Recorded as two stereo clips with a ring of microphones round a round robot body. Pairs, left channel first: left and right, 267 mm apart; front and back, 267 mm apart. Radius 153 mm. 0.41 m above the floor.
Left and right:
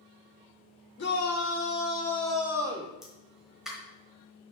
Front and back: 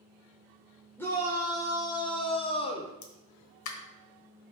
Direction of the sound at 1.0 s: 80° left.